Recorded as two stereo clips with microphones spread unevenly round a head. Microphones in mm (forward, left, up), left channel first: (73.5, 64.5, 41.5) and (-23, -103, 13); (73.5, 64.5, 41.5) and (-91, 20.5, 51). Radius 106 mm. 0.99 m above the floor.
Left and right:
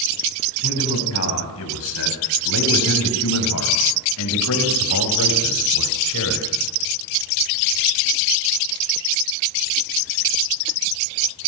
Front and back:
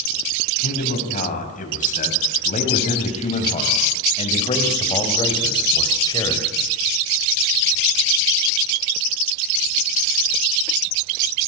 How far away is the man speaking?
About 6 m.